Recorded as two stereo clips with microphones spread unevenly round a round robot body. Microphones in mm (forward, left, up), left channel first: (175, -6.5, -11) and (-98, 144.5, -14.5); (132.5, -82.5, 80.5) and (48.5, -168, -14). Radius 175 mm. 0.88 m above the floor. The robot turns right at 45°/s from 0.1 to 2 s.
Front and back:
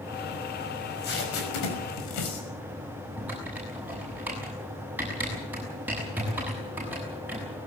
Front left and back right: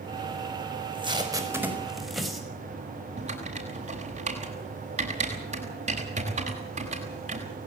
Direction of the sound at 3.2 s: 125° right.